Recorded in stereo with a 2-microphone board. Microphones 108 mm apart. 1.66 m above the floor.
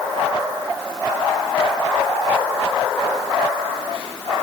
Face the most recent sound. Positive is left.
No sound to turn to.